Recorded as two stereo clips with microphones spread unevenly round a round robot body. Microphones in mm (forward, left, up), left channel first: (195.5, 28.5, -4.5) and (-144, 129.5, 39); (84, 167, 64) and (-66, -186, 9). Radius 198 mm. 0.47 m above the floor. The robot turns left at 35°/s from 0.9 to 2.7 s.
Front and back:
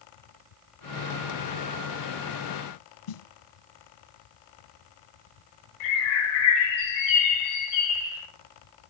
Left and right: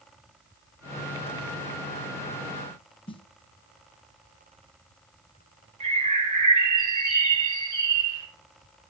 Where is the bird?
40° right, 4.5 m.